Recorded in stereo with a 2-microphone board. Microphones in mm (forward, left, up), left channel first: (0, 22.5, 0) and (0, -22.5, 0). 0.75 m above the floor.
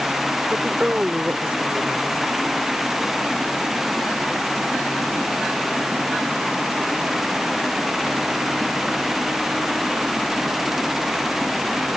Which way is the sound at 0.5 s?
30° right (ahead or behind).